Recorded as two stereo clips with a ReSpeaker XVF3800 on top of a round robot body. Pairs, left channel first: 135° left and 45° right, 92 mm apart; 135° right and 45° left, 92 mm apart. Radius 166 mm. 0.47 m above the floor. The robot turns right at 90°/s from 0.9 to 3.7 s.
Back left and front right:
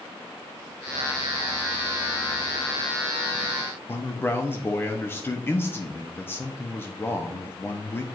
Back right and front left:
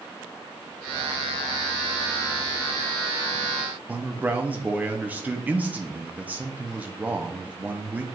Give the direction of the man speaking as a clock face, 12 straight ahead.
9 o'clock.